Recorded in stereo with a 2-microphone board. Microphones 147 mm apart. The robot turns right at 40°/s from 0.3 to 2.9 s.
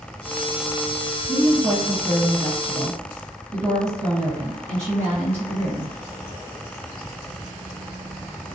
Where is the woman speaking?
110° right, 1.4 m; by 6.0 s 50° right, 1.4 m.